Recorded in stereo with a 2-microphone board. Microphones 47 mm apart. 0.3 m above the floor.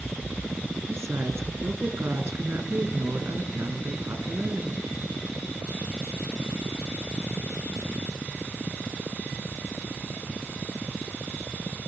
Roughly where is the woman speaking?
Right.